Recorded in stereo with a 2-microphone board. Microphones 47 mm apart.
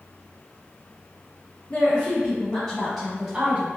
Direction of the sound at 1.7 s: 45° left (ahead or behind).